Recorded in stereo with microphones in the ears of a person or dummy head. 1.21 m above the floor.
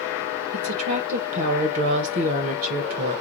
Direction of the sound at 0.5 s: 45° right (ahead or behind).